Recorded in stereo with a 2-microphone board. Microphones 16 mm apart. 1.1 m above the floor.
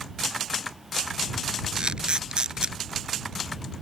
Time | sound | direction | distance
1.8 | a camera shutter | 55° right (ahead or behind) | ?